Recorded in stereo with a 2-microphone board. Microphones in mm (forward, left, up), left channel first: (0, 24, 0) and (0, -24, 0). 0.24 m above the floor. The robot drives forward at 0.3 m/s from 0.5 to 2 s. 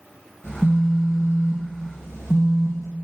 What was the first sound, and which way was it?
A phone buzzing, 60° left (ahead or behind).